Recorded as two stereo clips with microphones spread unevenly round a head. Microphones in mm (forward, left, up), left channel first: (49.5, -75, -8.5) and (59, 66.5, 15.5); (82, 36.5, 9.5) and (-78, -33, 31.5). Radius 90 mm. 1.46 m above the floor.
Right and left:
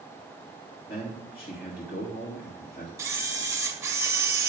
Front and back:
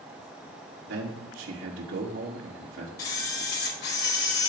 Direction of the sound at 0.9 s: 135° right.